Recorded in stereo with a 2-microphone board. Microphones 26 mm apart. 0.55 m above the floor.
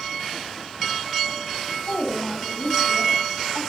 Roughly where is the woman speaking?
Left.